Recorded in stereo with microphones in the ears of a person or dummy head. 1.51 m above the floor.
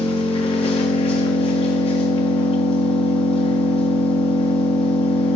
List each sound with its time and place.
0.0 s an engine running: 35° left (ahead or behind), 1.8 m